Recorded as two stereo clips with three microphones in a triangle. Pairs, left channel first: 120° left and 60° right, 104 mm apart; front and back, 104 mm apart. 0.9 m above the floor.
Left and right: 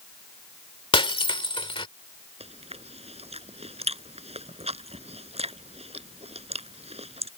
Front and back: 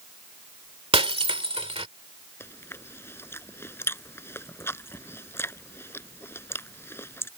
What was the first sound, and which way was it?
Breaking glass, 155° left.